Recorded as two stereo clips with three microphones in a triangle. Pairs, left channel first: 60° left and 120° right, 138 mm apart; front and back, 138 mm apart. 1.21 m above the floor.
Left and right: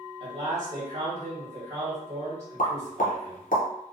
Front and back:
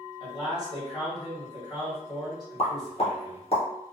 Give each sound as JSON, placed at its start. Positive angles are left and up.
{"t": 0.2, "sound": "a man speaking", "azimuth_deg": -70, "distance_m": 1.2}
{"t": 2.6, "sound": "a pop", "azimuth_deg": 45, "distance_m": 0.7}